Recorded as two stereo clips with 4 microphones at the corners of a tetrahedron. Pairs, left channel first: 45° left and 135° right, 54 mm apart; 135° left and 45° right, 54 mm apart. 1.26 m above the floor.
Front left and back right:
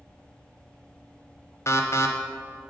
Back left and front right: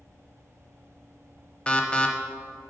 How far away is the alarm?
About 0.7 m.